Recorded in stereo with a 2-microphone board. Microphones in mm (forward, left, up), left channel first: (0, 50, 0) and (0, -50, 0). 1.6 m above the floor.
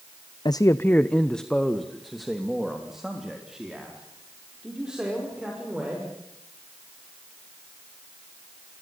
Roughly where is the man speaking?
Left.